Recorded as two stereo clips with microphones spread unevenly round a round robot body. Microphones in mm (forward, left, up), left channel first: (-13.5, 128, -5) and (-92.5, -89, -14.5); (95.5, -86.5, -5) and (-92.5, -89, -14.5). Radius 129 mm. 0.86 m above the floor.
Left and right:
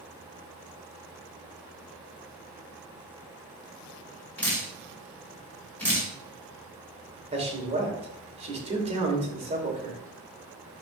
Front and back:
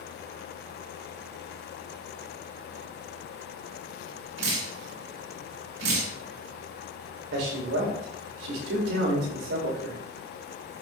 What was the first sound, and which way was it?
Dripping, 155° left.